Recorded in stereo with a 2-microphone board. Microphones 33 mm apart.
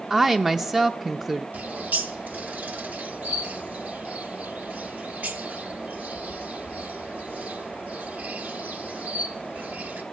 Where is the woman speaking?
15° right (ahead or behind), 0.5 m.